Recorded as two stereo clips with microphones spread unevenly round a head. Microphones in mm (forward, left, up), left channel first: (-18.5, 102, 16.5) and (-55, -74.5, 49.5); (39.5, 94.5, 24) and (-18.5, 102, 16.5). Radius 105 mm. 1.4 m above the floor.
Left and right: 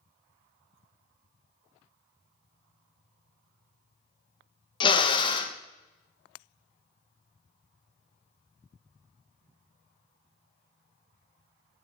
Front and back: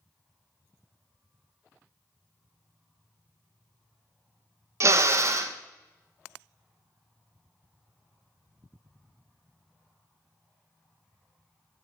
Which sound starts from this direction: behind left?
A drill, at 4.8 s.